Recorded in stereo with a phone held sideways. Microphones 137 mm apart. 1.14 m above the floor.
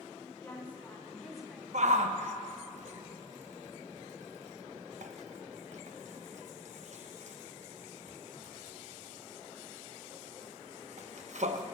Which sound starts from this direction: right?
A shout, at 1.7 s.